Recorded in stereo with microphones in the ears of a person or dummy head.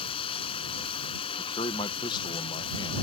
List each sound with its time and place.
0.0 s running water: 35° left (ahead or behind)
1.4 s a man speaking: 25° left (ahead or behind)